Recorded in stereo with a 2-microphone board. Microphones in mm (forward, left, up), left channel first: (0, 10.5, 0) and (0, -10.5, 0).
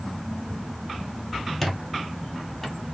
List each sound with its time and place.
1.6 s a squeak: 10° left (ahead or behind), 0.7 m